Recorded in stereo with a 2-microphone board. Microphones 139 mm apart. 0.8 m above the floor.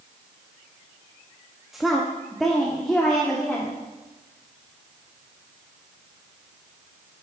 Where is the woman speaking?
Centre (ahead or behind), 0.9 m; by 3.8 s 5° left (ahead or behind), 1.9 m.